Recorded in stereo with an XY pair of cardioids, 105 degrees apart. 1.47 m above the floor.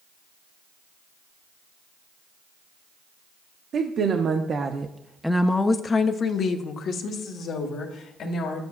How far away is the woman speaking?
About 0.9 m.